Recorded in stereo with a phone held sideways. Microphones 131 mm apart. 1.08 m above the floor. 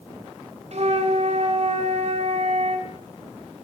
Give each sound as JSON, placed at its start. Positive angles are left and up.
{"t": 0.7, "sound": "a flute", "side_deg": -60, "distance_m": 1.7}